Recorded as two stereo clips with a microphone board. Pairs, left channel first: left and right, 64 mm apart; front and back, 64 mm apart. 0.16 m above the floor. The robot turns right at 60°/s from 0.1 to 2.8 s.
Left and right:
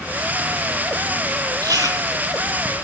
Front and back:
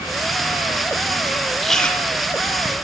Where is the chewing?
90° right, 1.0 m; by 2.7 s 20° right, 1.0 m.